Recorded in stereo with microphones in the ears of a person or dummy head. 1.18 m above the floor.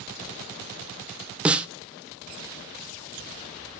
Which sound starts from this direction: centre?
A snare drum, at 1.4 s.